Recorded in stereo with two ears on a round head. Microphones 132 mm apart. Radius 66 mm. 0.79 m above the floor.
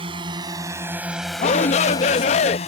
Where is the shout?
45° left (ahead or behind).